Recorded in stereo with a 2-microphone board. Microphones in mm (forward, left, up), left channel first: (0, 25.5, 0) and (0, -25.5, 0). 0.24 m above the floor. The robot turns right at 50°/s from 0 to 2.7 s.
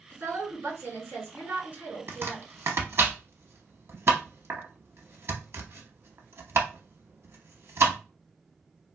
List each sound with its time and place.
0.1 s a woman speaking: 130° right, 2.5 m; by 2.5 s 15° right, 2.5 m
2.1 s chopping: 50° right (ahead or behind), 0.7 m; by 8.0 s 60° right (ahead or behind), 0.7 m